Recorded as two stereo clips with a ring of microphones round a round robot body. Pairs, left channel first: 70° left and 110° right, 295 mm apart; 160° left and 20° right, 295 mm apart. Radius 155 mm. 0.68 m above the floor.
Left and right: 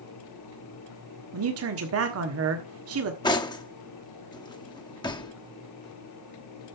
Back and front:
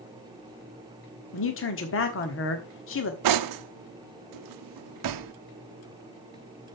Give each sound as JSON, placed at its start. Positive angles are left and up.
{"t": 1.3, "sound": "a man speaking", "azimuth_deg": -155, "distance_m": 1.4}
{"t": 3.2, "sound": "cutlery clinking", "azimuth_deg": -10, "distance_m": 0.7}